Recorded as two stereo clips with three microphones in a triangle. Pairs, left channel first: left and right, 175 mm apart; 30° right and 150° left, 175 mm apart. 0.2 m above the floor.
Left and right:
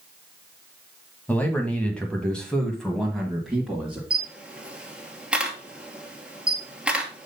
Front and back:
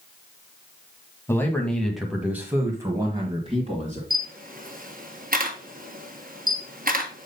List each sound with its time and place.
1.3 s a man speaking: 25° left, 1.6 m; by 4.0 s straight behind, 2.0 m
4.1 s a camera shutter: 175° right, 1.4 m